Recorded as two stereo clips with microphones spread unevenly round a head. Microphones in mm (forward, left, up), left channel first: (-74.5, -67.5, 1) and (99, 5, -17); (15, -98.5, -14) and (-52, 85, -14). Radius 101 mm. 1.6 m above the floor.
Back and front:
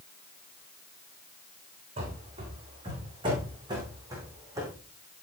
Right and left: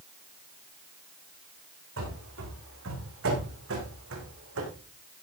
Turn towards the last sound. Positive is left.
turn(degrees=100)